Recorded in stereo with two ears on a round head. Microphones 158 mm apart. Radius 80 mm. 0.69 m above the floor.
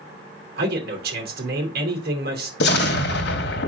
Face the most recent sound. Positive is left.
turn(degrees=65)  # may be behind; listen again after turning